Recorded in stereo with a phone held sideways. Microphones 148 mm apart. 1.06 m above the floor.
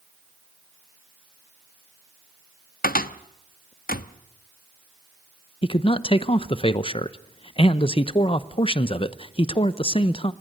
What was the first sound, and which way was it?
A cupboard door, 80° left.